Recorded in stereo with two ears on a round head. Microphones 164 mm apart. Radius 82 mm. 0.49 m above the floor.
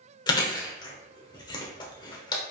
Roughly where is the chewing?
Left.